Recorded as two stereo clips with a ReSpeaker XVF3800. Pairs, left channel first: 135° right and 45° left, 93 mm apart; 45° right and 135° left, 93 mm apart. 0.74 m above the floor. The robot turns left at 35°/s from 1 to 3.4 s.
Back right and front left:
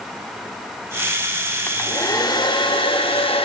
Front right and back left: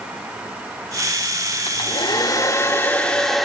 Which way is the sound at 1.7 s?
75° right.